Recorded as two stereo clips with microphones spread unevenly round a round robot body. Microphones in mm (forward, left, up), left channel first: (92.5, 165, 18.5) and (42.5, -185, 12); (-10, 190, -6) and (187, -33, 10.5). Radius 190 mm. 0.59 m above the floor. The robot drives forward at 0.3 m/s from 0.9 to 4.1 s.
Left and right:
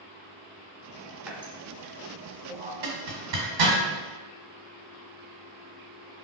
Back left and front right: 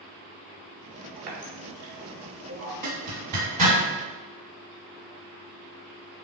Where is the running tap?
10° right, 1.3 m; by 2.7 s 15° right, 0.9 m.